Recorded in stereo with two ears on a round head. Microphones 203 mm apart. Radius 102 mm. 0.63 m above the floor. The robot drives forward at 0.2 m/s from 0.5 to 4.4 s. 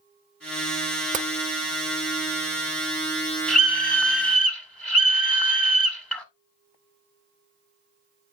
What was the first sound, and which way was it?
Tapping, 35° right (ahead or behind).